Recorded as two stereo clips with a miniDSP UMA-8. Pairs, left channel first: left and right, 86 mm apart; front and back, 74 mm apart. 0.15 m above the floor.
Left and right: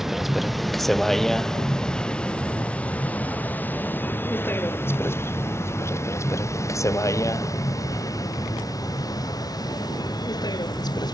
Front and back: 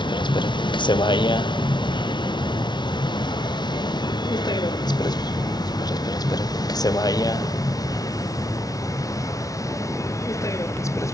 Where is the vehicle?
5° right; by 11.2 s 50° left.